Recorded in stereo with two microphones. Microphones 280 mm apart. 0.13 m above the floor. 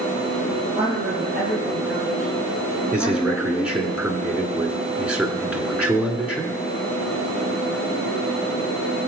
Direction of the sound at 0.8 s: 10° right (ahead or behind).